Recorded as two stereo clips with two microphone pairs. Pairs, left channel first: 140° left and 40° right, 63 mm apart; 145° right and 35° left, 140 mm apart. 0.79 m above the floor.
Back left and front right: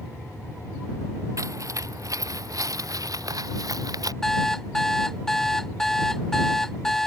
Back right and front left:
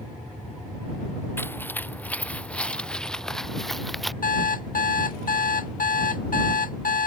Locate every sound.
1.4 s footsteps: 70° right; by 4.1 s 55° right
4.2 s an alarm clock: 135° right